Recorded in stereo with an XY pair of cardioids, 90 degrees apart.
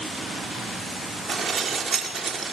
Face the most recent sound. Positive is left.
turn(degrees=-55)